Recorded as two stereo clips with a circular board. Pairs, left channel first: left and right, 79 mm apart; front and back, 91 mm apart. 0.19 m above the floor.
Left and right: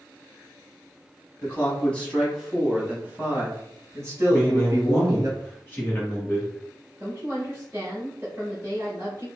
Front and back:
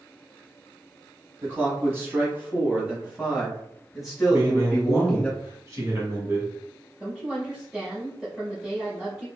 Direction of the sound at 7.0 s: 110° right.